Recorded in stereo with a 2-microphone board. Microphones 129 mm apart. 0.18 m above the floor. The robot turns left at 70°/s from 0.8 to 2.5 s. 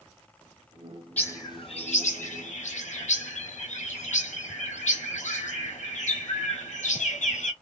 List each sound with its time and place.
1.2 s a bird: 170° left, 1.0 m; by 7.5 s 75° left, 1.0 m